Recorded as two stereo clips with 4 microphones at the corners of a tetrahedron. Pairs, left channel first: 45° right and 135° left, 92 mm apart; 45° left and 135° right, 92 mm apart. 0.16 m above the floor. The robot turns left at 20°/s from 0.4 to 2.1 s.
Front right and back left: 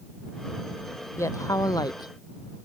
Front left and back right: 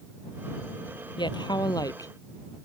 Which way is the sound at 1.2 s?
10° left.